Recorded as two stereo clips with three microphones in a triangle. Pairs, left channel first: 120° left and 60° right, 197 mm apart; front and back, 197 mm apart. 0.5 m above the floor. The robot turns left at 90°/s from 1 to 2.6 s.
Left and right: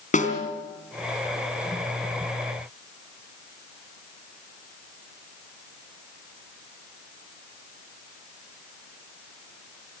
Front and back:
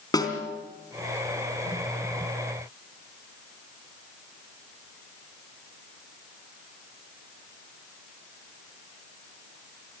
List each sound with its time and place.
0.1 s a snare drum: 70° left, 3.5 m